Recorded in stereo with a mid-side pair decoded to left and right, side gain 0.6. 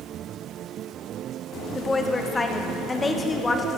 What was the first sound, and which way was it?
A woman speaking, 20° left.